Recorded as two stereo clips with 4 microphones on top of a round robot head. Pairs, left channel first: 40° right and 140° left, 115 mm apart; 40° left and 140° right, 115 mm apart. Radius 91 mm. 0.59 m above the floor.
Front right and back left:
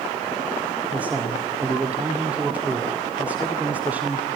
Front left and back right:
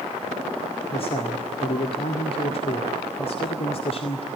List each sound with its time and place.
0.9 s a man speaking: 65° left, 2 m